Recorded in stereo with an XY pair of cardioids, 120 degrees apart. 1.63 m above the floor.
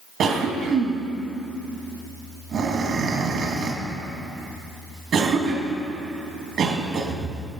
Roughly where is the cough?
Ahead right.